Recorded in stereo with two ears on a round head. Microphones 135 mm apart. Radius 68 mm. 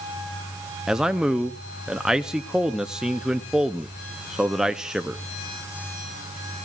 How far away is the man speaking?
About 0.6 m.